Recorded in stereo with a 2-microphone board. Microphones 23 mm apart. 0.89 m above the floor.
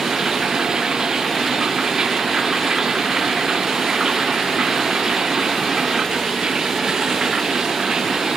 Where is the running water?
35° right (ahead or behind).